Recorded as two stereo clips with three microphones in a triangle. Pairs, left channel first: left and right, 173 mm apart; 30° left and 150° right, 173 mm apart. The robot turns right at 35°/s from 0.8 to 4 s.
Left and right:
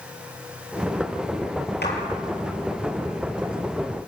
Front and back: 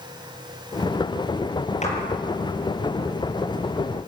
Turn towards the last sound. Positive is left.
turn(degrees=155)